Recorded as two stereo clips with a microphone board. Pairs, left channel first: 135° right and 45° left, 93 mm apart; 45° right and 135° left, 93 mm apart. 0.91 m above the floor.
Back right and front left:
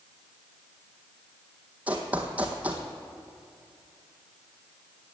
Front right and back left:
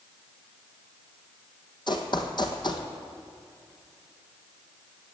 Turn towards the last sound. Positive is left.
turn(degrees=-25)